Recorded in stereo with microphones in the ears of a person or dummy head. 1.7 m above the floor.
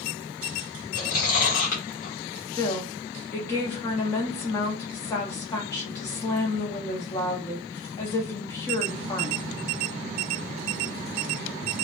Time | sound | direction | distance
0.9 | chewing | 55° left (ahead or behind) | 1.0 m
2.5 | a woman speaking | 15° left (ahead or behind) | 0.6 m